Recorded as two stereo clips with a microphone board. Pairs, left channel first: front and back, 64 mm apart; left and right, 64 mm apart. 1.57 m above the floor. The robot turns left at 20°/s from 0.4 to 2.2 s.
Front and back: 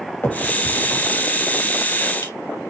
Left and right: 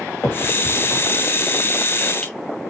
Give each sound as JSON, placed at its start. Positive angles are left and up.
{"t": 0.2, "sound": "a finger snap", "azimuth_deg": 50, "distance_m": 3.0}